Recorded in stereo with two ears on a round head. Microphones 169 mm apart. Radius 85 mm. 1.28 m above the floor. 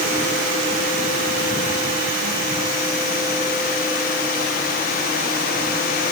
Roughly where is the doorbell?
I don't hear a doorbell.